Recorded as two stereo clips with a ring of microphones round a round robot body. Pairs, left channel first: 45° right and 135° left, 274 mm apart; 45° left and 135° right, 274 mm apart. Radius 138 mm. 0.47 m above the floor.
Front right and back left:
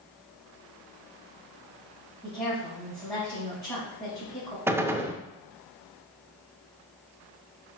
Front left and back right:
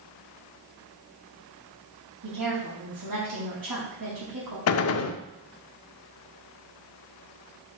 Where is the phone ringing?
No phone ringing in this recording.